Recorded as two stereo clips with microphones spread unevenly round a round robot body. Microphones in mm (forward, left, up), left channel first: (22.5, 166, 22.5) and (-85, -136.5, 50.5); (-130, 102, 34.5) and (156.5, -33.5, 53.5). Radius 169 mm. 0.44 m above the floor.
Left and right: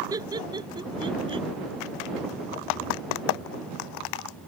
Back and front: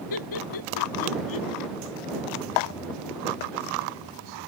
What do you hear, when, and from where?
0.1 s laughter: 170° left; by 1.5 s straight behind